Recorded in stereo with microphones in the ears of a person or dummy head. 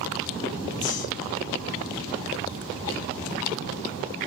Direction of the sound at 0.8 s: 40° left (ahead or behind).